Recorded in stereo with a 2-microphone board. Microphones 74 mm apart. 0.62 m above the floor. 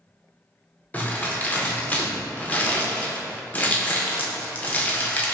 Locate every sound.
0.9 s crumpling: 25° left (ahead or behind), 0.5 m